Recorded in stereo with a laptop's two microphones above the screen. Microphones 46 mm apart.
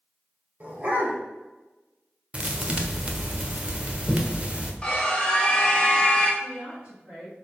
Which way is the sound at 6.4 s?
25° right (ahead or behind).